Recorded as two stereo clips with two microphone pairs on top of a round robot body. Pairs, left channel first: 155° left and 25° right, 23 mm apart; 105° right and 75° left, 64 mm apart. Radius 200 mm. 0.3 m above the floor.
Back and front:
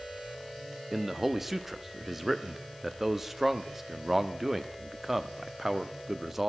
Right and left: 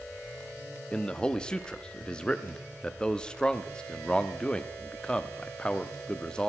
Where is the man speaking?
50° right, 1.0 m.